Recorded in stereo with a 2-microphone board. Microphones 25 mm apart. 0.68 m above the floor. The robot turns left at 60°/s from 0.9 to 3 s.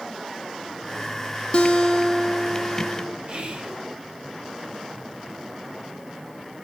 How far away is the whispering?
About 2.0 m.